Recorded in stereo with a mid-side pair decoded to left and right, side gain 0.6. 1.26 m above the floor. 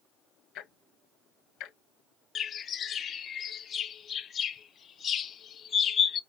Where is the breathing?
I don't hear breathing.